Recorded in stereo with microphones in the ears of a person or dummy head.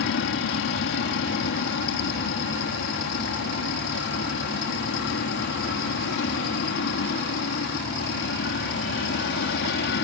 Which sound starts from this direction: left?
An aircraft, at 0.0 s.